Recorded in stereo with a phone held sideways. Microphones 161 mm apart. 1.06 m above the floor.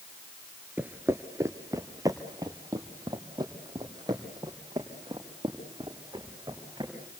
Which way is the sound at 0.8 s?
10° right (ahead or behind).